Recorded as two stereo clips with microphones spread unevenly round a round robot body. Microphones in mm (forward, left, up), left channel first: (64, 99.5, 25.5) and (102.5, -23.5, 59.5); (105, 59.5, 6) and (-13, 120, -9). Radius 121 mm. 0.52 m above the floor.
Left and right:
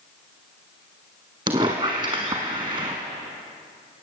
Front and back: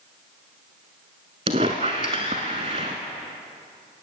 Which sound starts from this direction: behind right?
A squeak, at 1.5 s.